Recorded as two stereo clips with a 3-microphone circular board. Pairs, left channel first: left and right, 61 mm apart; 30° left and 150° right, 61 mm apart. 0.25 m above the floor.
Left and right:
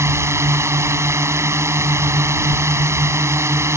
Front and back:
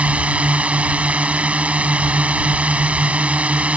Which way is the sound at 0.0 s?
90° right.